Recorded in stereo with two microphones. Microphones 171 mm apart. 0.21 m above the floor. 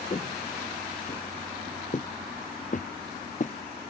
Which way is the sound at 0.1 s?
40° left (ahead or behind).